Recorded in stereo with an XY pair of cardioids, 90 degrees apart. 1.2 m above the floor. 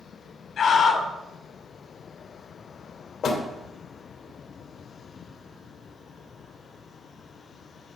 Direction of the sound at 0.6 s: 65° left.